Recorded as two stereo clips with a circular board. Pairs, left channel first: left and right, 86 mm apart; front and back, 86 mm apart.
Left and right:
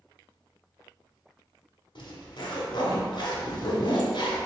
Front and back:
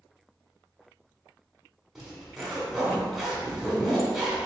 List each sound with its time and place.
1.9 s a zipper: 95° left, 1.3 m